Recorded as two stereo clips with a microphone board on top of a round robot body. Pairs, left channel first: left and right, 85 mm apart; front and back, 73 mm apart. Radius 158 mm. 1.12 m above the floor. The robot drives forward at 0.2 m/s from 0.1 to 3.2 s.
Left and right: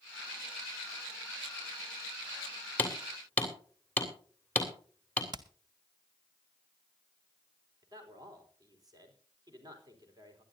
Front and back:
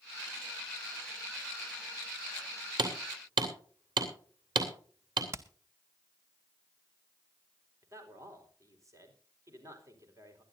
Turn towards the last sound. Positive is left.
turn(degrees=-135)